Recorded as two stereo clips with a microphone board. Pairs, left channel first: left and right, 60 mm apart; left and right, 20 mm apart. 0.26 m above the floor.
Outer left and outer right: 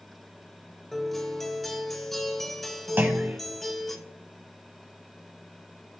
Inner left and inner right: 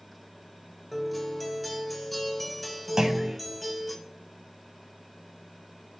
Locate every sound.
0.9 s a guitar: 5° left (ahead or behind), 1.0 m
3.0 s a clunk: 35° right (ahead or behind), 1.1 m